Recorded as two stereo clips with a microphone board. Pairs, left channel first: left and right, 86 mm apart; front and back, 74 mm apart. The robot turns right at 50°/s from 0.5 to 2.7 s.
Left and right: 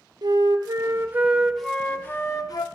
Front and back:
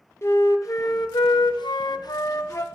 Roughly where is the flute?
Ahead right.